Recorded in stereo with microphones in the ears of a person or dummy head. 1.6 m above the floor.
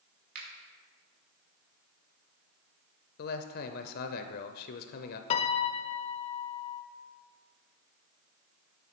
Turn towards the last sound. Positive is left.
turn(degrees=35)  # may be behind; listen again after turning